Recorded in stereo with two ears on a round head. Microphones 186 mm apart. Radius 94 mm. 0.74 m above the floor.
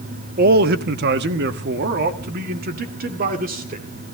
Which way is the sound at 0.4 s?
45° right (ahead or behind).